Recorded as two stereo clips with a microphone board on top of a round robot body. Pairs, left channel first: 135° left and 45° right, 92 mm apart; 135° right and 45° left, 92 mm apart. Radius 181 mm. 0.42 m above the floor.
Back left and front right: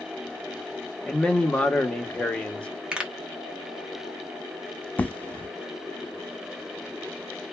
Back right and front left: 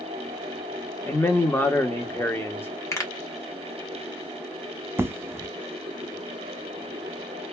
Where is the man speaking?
160° right, 0.8 m.